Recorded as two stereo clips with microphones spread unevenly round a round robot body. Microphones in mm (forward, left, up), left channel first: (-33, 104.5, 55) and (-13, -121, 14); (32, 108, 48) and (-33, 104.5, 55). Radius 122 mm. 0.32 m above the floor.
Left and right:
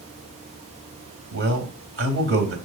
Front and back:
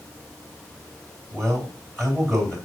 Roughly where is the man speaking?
Right.